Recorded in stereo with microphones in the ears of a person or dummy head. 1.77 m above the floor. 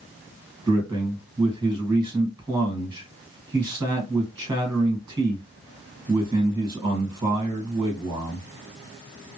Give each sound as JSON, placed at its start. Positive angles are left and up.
{"t": 0.7, "sound": "a man speaking", "side_deg": -20, "distance_m": 1.5}